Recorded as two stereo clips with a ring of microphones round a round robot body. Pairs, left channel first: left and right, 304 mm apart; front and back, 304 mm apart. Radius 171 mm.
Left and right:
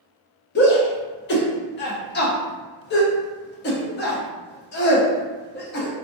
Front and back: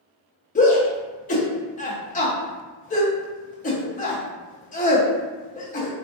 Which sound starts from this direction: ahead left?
A shout, at 0.6 s.